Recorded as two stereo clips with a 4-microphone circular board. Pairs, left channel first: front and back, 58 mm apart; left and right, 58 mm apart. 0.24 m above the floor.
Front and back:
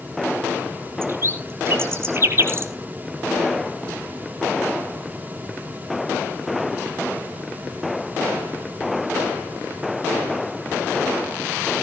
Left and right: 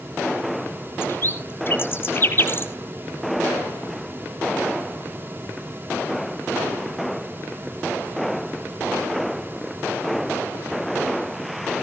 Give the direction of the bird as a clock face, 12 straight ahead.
7 o'clock.